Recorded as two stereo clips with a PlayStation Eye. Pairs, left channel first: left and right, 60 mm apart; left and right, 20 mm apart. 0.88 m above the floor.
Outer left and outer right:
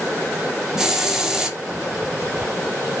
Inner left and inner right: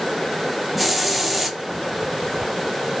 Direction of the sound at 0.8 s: 10° right (ahead or behind).